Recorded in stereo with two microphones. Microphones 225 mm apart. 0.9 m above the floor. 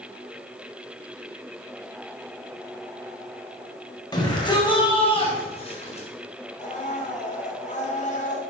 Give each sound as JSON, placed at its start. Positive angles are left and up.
{"t": 4.1, "sound": "a shout", "side_deg": 15, "distance_m": 5.0}
{"t": 6.6, "sound": "a blender", "side_deg": 35, "distance_m": 3.0}